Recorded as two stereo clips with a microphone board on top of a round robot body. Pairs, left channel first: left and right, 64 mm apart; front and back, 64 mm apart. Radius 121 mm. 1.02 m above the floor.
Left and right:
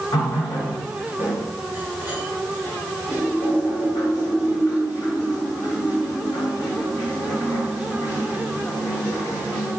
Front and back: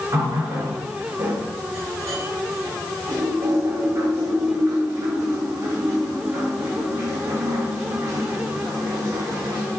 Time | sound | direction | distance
0.1 | a running tap | 130° left | 3.5 m